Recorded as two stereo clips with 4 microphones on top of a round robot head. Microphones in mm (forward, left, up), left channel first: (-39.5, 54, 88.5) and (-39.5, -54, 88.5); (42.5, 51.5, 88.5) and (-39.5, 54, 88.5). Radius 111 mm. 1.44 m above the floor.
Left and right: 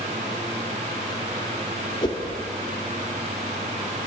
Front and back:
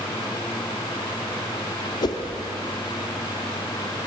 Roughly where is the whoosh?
Ahead left.